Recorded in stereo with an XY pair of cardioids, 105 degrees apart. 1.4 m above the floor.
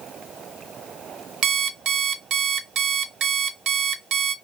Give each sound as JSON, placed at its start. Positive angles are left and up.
{"t": 1.4, "sound": "an alarm clock", "azimuth_deg": -70, "distance_m": 1.6}